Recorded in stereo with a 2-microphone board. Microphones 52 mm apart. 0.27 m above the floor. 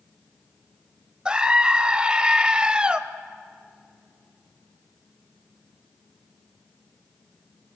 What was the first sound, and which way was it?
A scream, 20° right (ahead or behind).